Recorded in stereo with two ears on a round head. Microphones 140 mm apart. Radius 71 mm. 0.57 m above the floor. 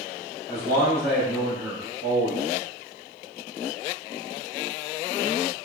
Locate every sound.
0.5 s a man speaking: 25° left (ahead or behind), 1.0 m; by 2.4 s 40° right (ahead or behind), 1.2 m